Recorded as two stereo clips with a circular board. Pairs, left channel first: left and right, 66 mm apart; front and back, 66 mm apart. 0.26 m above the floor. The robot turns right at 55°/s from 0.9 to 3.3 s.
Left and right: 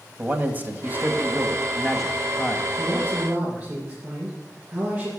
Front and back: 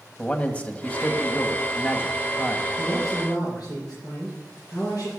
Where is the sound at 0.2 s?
55° right, 1.7 m; by 2.7 s 45° left, 1.7 m.